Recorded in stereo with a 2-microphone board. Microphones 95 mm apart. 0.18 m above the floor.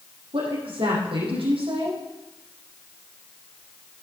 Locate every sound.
0.3 s a woman speaking: 75° right (ahead or behind), 6.5 m